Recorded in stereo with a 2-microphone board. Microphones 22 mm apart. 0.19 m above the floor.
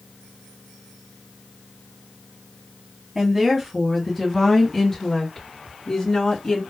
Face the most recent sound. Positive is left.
turn(degrees=45)  # may be behind; listen again after turning